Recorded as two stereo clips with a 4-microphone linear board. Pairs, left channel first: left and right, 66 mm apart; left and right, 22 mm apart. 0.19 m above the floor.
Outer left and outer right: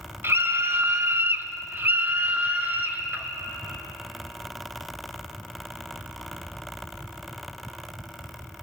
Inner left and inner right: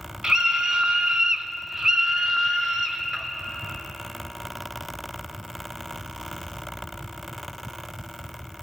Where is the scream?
35° right (ahead or behind), 1.2 m; by 3.3 s 30° right (ahead or behind), 2 m.